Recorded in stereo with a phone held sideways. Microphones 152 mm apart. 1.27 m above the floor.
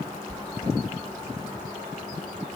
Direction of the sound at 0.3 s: 40° left (ahead or behind).